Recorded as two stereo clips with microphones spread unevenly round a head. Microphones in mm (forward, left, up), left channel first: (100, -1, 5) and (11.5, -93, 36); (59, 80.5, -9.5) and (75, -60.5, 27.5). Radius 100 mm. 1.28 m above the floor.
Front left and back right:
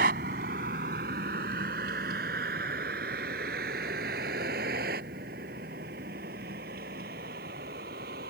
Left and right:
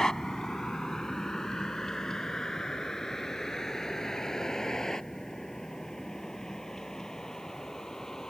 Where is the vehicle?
175° right.